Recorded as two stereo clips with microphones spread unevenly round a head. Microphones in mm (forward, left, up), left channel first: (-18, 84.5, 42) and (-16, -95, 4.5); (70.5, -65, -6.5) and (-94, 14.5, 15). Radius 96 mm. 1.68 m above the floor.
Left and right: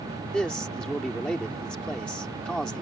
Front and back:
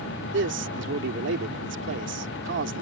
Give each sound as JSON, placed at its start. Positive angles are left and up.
{"t": 0.3, "sound": "a man speaking", "azimuth_deg": 175}